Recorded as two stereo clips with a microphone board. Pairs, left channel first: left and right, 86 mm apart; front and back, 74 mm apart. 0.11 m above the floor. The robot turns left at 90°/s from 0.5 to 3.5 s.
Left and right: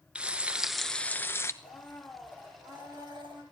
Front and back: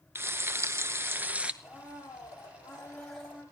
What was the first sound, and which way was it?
Frying, 155° right.